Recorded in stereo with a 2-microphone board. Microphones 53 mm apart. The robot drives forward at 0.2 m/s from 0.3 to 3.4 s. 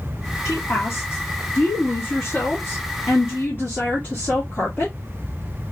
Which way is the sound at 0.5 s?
60° left (ahead or behind).